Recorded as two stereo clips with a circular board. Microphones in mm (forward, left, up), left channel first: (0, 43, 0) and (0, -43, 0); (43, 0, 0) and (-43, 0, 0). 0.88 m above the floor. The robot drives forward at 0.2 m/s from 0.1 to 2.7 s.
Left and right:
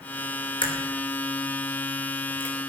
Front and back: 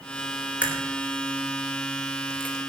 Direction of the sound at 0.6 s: 105° left.